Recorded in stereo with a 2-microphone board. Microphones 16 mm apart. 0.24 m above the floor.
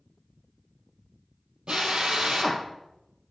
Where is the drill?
65° right (ahead or behind), 2.5 m.